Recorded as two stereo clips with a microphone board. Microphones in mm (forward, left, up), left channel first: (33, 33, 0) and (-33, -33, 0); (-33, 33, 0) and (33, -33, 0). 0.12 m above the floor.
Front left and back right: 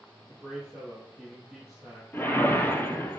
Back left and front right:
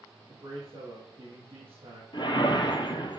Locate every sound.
0.3 s a man speaking: 55° right, 3 m
2.1 s a whoosh: 110° left, 1.0 m